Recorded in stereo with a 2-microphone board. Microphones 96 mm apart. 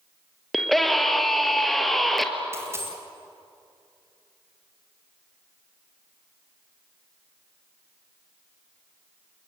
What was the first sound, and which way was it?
A scream, centre (ahead or behind).